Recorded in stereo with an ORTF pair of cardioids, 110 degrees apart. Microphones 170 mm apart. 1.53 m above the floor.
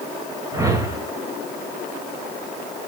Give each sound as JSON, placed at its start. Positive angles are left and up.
{"t": 0.5, "sound": "a whoosh", "azimuth_deg": -20, "distance_m": 4.0}